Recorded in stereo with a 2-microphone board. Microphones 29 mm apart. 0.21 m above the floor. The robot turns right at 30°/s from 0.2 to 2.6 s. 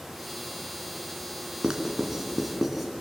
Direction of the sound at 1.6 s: 30° right (ahead or behind).